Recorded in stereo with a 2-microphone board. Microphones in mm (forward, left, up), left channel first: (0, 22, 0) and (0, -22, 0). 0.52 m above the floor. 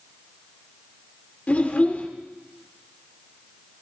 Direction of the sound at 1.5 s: 40° left (ahead or behind).